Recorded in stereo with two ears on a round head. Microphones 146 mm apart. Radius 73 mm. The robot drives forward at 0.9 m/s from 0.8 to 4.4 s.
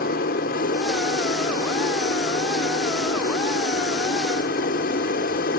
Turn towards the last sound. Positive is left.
turn(degrees=60)  # may be behind; listen again after turning